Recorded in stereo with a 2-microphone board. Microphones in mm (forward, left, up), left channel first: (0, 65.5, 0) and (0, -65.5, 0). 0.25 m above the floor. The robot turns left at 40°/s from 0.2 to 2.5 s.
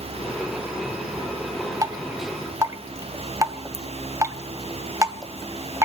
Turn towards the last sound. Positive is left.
turn(degrees=-25)  # may be behind; listen again after turning